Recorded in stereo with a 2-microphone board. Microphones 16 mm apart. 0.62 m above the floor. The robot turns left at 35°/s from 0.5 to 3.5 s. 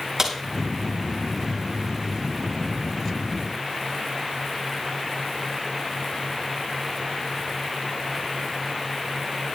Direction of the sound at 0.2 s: 35° right (ahead or behind).